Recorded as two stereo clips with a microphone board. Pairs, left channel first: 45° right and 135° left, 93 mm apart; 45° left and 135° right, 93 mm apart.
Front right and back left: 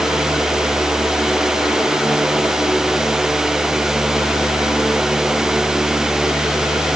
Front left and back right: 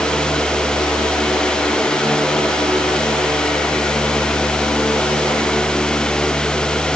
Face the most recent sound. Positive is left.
No sound to turn to.